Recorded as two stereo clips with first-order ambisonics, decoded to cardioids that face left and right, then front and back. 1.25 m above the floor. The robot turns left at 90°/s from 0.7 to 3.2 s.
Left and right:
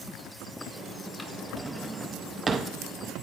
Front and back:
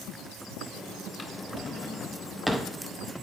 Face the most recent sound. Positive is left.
turn(degrees=-155)